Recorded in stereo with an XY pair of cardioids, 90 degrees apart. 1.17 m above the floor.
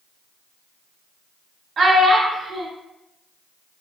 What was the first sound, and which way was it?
A child speaking, 45° right.